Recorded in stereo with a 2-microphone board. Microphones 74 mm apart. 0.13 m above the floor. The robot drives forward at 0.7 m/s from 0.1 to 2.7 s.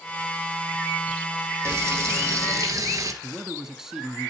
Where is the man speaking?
5° right (ahead or behind), 1.1 m.